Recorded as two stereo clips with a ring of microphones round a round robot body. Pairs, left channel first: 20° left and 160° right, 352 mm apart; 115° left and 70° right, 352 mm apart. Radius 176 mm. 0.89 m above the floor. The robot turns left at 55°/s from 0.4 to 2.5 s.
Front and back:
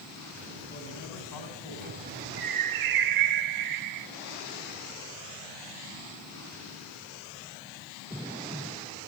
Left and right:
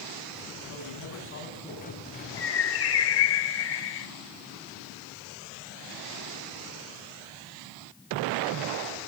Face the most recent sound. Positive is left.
turn(degrees=165)